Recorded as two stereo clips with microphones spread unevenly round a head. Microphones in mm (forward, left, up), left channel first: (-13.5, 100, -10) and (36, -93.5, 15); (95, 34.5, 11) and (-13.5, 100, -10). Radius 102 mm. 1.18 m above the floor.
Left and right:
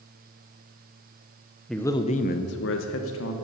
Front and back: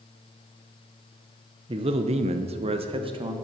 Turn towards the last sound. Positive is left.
turn(degrees=105)